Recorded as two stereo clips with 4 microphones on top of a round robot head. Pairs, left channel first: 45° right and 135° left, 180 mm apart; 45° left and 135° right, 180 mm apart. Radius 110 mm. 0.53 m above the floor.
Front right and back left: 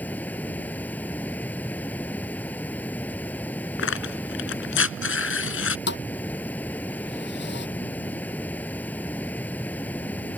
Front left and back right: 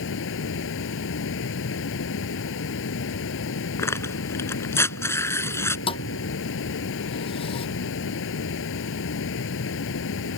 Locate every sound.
0.0 s running water: 35° left
3.8 s tearing paper: 30° right
5.9 s a thud: 15° right